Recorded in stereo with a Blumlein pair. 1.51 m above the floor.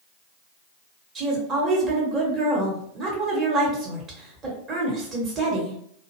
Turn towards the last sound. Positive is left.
turn(degrees=-25)